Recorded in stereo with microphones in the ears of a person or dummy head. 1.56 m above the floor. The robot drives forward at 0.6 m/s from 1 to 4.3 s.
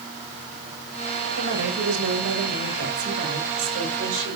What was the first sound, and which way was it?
A woman speaking, 80° right.